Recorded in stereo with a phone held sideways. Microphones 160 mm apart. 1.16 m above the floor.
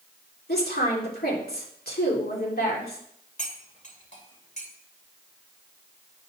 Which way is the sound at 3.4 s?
45° left (ahead or behind).